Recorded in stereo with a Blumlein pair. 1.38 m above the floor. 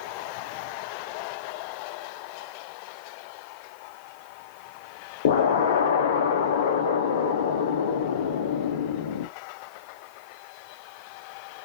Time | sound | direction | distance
5.2 | an explosion | 60° left | 0.9 m